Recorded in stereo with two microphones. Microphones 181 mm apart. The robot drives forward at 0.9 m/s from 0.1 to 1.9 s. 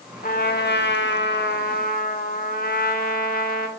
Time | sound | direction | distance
0.2 | a trumpet | 50° left (ahead or behind) | 1.2 m